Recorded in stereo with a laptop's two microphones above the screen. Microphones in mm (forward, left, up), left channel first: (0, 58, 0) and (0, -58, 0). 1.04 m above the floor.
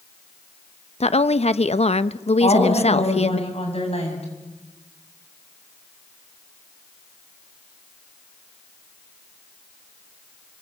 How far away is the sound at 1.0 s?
About 0.8 m.